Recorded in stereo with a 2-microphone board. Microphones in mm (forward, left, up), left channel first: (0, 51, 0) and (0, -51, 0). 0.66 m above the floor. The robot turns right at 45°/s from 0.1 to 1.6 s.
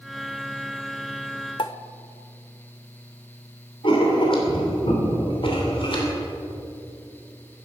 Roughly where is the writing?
Left.